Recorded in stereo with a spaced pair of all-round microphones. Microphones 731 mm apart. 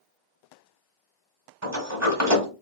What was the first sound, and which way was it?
A sliding door, 20° right (ahead or behind).